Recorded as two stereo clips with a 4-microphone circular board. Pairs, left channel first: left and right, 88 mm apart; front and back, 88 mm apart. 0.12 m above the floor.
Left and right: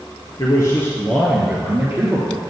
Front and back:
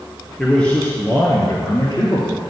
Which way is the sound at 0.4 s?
85° left.